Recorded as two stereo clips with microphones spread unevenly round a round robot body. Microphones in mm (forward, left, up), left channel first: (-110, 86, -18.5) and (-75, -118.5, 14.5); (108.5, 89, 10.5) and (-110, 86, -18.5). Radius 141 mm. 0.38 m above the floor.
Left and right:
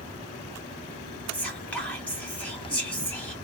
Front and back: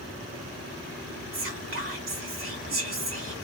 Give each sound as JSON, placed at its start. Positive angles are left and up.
{"t": 1.3, "sound": "whispering", "azimuth_deg": 180, "distance_m": 2.0}